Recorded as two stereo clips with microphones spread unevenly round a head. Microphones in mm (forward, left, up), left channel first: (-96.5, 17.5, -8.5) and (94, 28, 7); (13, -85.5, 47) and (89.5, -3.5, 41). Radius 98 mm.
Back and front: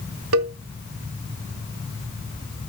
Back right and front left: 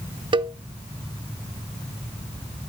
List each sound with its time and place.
0.3 s a cowbell: 5° left, 1.0 m